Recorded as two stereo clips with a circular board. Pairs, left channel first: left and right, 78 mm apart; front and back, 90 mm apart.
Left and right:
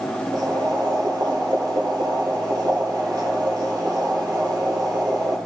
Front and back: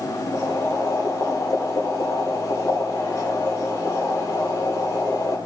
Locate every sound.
0.3 s boiling: 55° right, 2 m